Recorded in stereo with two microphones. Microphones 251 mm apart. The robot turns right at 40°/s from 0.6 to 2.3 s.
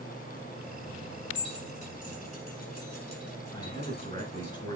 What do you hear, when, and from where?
1.4 s keys jangling: 65° left (ahead or behind), 3 m; by 4.5 s 75° left (ahead or behind), 3 m
3.5 s a man speaking: 20° left (ahead or behind), 3.5 m